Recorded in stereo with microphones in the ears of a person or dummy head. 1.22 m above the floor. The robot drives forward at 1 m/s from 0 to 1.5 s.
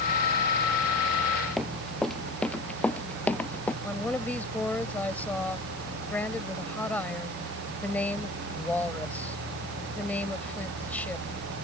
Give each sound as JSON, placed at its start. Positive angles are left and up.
{"t": 1.6, "sound": "running footsteps", "side_deg": 0}
{"t": 3.8, "sound": "a woman speaking", "side_deg": 10}